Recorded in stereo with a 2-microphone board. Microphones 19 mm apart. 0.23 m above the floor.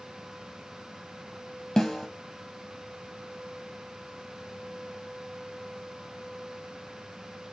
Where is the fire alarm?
No fire alarm in this recording.